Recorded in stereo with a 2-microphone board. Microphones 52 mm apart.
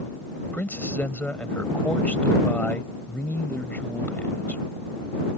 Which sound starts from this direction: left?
A man speaking, at 0.5 s.